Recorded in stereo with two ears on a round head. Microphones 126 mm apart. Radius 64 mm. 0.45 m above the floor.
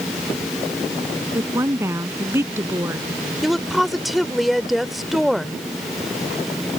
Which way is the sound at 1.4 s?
15° right (ahead or behind).